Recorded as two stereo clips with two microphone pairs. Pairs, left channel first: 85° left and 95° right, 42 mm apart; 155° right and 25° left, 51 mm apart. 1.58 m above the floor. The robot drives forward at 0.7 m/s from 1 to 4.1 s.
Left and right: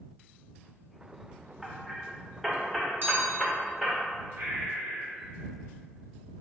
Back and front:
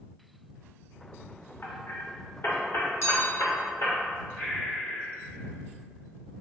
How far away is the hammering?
About 1.4 m.